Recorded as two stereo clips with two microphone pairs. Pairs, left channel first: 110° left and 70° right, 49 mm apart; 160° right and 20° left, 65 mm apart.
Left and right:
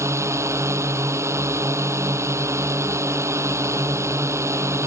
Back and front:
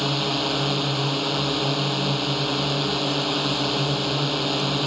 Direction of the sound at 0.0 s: 70° right.